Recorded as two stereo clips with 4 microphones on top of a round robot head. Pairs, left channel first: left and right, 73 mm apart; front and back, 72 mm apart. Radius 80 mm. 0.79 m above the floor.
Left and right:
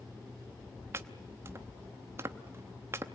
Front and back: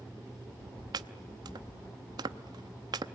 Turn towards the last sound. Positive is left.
turn(degrees=-150)